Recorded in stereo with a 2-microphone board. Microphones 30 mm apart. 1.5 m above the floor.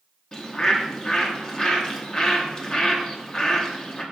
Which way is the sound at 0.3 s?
25° left (ahead or behind).